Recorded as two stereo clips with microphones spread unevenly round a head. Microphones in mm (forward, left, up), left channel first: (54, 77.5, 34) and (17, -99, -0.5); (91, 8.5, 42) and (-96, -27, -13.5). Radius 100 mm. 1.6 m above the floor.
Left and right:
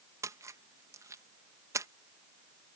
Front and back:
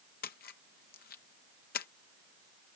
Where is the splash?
25° right.